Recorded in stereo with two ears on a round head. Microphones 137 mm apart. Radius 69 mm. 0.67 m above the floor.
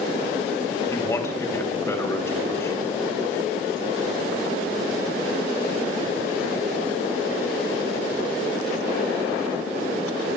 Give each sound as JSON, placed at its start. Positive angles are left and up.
{"t": 0.9, "sound": "a man speaking", "side_deg": 15, "distance_m": 3.5}